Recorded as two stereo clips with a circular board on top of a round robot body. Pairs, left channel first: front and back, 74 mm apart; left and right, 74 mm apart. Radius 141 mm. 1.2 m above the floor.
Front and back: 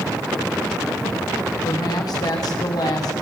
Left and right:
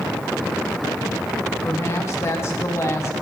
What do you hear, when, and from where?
1.6 s a woman speaking: 35° left, 1.8 m